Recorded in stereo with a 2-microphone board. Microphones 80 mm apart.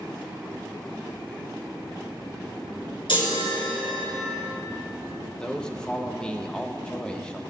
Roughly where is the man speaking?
Centre.